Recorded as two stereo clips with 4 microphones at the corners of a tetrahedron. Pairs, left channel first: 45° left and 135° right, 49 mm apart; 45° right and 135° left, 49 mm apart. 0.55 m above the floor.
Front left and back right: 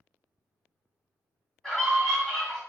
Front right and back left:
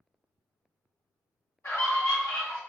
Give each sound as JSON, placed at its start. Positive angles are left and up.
{"t": 1.6, "sound": "a scream", "azimuth_deg": -30, "distance_m": 2.0}